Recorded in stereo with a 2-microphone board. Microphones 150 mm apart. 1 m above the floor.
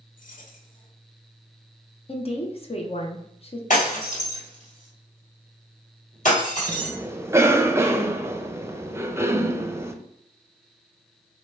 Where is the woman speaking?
40° left (ahead or behind), 0.8 m.